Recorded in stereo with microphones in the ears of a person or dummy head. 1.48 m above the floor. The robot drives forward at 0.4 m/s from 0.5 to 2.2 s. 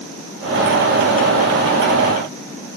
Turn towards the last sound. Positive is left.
No sound to turn to.